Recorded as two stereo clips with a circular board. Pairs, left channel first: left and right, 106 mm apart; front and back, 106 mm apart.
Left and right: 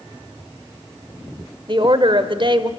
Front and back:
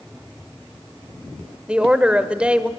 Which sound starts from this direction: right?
A woman speaking, at 1.7 s.